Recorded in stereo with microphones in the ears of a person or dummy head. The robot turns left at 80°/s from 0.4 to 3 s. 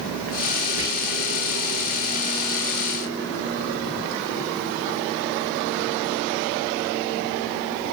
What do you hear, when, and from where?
0.8 s whispering: 25° right (ahead or behind), 1.9 m; by 0.9 s 35° right (ahead or behind), 1.9 m